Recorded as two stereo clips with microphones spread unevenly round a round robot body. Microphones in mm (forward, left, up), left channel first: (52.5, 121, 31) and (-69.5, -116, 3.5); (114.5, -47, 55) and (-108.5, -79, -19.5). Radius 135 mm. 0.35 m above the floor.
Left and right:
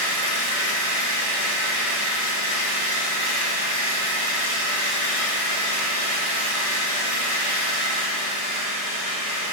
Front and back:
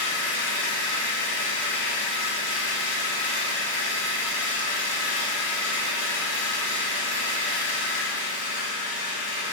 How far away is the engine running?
About 1.9 m.